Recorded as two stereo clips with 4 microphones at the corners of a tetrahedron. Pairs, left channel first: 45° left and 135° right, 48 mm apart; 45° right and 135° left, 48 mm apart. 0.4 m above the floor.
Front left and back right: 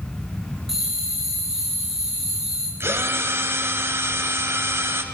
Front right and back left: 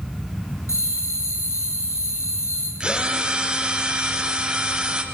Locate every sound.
0.7 s a bell: 50° right, 7 m
2.8 s a drill: 155° right, 3 m